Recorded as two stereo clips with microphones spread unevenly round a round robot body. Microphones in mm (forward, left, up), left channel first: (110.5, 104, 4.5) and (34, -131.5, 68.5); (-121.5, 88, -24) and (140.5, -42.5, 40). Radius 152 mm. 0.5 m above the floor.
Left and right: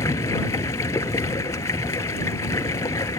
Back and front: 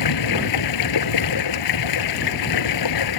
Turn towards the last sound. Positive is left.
turn(degrees=150)